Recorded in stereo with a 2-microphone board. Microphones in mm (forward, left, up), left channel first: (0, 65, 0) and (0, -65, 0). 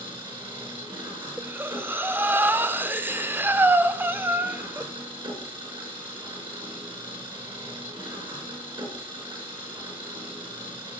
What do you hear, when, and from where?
0.0 s an engine running: 40° right (ahead or behind), 4.5 m
1.4 s breathing: 15° right (ahead or behind), 0.6 m